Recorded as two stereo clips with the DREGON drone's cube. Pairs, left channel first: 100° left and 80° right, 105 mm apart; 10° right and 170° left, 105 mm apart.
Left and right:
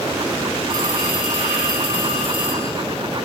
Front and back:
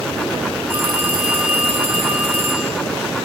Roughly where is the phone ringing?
Behind right.